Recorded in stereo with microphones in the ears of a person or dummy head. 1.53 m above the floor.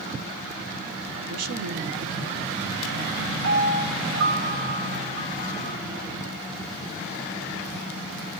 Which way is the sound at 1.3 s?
80° right.